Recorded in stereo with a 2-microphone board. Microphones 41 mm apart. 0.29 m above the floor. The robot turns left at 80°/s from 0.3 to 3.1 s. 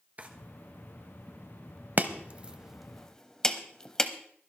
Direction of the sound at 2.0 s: 45° right (ahead or behind).